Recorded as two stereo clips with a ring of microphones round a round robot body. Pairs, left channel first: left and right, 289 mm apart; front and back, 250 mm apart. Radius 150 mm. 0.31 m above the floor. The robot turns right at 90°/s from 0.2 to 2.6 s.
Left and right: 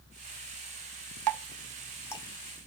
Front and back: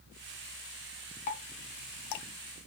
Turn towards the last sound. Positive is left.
turn(degrees=50)